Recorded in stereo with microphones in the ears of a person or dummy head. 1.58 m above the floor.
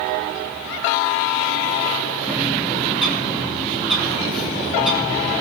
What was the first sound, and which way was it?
A bird, centre (ahead or behind).